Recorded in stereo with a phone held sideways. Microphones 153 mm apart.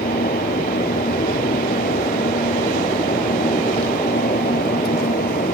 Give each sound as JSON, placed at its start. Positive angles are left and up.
{"t": 0.0, "sound": "a fan", "side_deg": 85}